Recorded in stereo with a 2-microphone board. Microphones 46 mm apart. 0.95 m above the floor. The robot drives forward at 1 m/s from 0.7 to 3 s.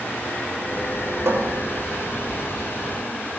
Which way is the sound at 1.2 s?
80° right.